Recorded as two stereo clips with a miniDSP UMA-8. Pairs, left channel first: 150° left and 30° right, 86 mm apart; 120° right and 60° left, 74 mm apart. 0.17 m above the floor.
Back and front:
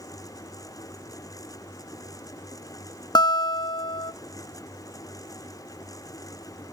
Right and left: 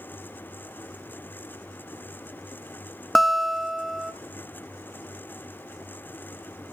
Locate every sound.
3.1 s a guitar: 150° left, 0.6 m